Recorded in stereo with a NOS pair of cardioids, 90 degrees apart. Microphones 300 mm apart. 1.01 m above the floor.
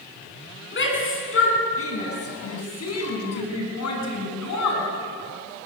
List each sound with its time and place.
0.7 s a shout: 40° left, 9.5 m; by 4.9 s 70° left, 9.5 m